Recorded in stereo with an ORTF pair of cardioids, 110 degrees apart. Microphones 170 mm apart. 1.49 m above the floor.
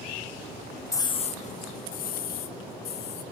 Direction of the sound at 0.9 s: 10° left.